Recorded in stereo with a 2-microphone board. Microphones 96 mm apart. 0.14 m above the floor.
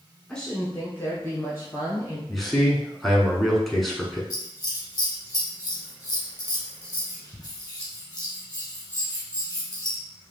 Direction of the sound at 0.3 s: 5° left (ahead or behind).